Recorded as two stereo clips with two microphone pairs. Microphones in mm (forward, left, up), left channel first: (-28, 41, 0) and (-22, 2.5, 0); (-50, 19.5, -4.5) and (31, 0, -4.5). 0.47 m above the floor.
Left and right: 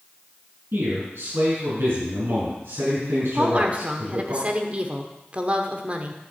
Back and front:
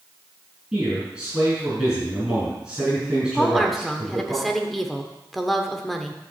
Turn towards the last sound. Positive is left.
turn(degrees=-110)